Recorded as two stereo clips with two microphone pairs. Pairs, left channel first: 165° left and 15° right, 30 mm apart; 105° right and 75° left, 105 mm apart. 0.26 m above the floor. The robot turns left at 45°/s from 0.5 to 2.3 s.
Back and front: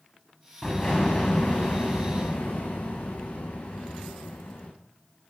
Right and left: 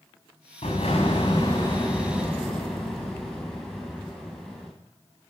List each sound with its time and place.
0.6 s an explosion: 125° right, 5.5 m; by 4.7 s 160° left, 5.5 m